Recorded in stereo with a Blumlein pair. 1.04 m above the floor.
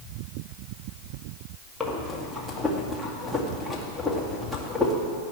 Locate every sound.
1.8 s breathing: 5° left, 2 m